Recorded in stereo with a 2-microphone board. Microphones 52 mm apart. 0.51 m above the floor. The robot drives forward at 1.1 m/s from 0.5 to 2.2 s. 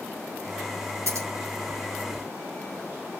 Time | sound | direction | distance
1.1 | scissors | 65° right (ahead or behind) | 9.5 m